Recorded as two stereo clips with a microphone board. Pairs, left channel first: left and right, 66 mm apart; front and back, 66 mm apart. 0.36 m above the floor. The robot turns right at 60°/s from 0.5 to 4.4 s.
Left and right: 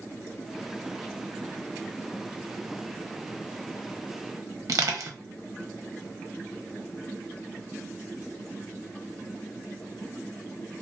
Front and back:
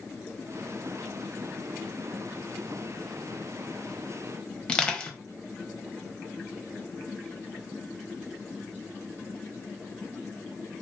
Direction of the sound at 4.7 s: 75° right.